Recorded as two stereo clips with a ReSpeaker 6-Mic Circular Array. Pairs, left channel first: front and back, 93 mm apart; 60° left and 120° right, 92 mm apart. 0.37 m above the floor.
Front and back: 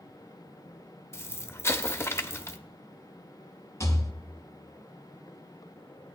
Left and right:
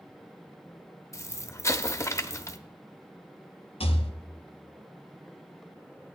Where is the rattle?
60° left, 1.0 m.